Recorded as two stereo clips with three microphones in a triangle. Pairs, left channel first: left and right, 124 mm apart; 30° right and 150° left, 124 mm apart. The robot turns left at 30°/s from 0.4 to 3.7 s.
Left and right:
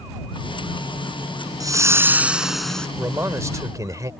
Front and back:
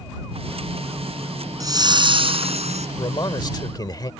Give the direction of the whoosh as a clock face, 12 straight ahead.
5 o'clock.